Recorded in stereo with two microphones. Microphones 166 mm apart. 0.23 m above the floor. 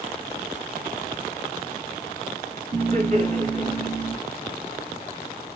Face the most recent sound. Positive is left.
turn(degrees=-50)  # may be behind; listen again after turning